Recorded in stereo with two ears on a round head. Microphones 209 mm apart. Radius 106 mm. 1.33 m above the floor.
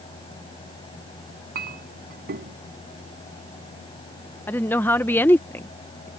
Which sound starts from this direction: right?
A clink, at 1.6 s.